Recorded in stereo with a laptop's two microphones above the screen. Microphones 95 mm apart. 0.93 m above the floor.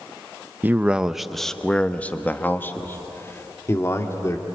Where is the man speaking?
20° right (ahead or behind), 0.8 m; by 4.5 s 30° left (ahead or behind), 3 m.